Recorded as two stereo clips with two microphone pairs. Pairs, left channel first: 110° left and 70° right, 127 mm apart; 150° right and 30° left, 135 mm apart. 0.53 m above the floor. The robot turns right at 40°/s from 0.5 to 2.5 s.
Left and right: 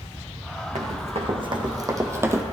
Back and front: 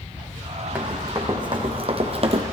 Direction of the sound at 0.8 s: 45° right.